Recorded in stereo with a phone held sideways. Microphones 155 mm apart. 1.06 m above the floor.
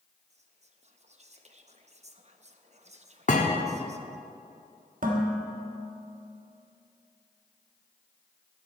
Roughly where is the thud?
Left.